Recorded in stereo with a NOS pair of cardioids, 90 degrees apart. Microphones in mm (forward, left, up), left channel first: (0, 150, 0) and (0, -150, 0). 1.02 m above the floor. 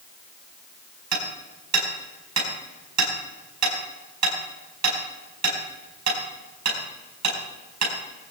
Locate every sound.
1.1 s hammering: 65° right, 4.5 m